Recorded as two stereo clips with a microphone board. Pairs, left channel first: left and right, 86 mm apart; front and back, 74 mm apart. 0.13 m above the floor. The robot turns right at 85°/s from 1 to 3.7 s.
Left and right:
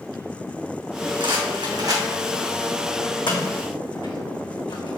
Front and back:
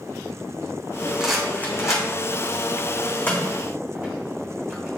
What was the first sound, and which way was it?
A rattle, 105° right.